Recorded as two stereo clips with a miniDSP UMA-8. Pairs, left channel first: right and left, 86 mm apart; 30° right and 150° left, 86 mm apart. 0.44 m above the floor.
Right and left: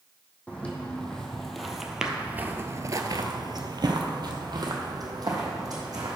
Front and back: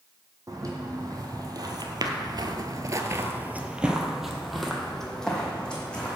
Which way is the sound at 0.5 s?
165° right.